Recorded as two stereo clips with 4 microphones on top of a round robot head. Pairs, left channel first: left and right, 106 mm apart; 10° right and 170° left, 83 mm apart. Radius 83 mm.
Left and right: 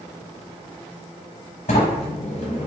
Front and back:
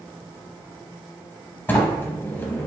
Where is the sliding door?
55° left, 0.6 m.